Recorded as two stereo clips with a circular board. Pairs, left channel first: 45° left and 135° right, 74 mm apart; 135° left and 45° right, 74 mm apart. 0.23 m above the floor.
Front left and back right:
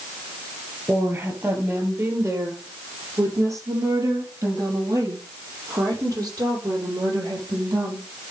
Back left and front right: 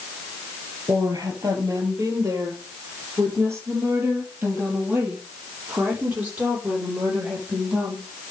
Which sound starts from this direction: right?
A woman speaking, at 0.9 s.